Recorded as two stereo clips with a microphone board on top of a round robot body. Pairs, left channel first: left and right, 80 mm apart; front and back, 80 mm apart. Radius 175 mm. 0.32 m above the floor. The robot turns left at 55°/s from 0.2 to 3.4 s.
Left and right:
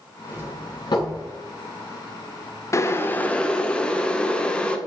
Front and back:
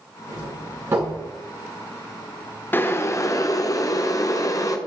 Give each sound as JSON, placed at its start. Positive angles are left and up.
{"t": 0.3, "sound": "a doorbell", "azimuth_deg": 160, "distance_m": 6.5}
{"t": 2.7, "sound": "boiling", "azimuth_deg": 55, "distance_m": 1.6}